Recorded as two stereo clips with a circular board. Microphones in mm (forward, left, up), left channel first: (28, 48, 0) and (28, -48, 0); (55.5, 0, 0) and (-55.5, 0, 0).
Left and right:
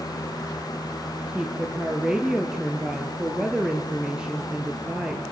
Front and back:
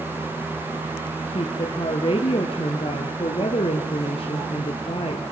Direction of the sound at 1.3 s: 10° right.